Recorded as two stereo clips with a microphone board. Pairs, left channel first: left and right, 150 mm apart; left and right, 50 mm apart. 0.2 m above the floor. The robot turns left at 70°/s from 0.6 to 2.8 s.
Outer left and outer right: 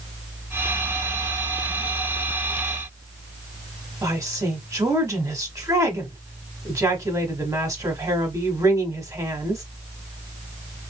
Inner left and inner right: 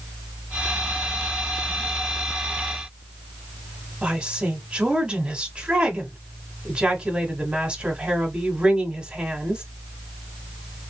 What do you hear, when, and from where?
4.0 s a woman speaking: 20° right (ahead or behind), 1.0 m